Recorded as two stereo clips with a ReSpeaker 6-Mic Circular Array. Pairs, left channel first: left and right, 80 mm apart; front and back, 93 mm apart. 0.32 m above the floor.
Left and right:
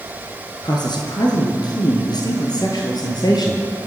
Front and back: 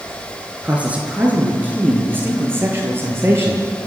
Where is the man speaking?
105° left, 4.5 m; by 3.9 s 120° left, 6.5 m.